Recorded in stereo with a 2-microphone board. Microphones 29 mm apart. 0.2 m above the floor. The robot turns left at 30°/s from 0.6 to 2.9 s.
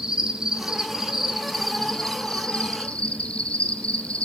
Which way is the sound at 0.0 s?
155° right.